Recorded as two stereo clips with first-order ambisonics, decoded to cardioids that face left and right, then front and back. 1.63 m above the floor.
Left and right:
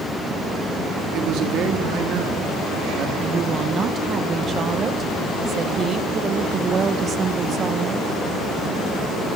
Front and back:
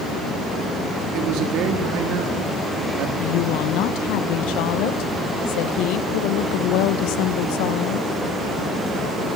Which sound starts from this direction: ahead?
A woman speaking, at 3.2 s.